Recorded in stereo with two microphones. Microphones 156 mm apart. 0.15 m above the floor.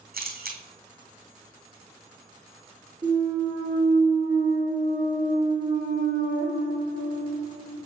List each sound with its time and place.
0.1 s a camera shutter: 85° right, 1.7 m
3.0 s a clunk: 35° right (ahead or behind), 3.5 m